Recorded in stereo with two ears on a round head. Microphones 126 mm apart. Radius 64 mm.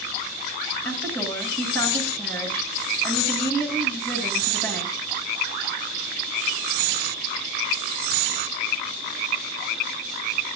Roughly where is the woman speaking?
Centre.